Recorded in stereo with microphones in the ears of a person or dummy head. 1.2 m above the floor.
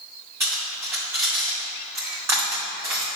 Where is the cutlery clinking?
10° right (ahead or behind), 1.9 m.